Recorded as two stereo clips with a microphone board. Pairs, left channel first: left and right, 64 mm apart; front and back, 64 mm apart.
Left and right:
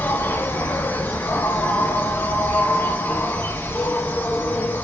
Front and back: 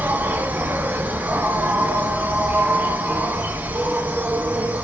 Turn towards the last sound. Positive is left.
turn(degrees=135)